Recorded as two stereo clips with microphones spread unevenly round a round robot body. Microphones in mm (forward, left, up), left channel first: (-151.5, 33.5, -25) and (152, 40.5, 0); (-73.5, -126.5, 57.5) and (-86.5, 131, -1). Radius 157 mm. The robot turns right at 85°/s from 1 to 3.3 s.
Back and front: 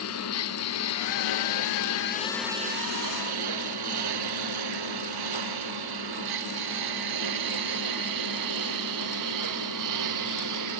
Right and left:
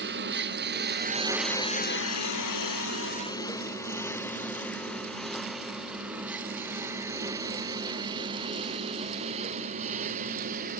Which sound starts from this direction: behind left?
A lawn mower, at 0.0 s.